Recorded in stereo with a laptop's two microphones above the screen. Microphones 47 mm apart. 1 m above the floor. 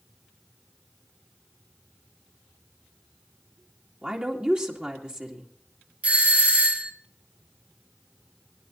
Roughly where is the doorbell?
Right.